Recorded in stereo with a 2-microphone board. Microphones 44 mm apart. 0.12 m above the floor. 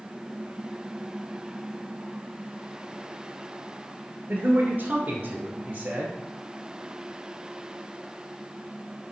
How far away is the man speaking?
About 1.4 m.